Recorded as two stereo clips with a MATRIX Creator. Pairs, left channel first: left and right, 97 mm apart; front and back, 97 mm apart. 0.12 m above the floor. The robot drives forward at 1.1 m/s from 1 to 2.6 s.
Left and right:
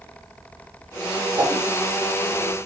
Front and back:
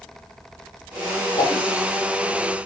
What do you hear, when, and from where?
1.4 s a whoosh: 35° right, 3.5 m